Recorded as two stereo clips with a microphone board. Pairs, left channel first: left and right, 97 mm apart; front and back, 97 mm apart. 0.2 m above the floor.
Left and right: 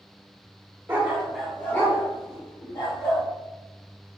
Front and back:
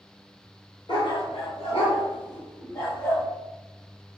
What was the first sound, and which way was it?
A dog barking, 25° right.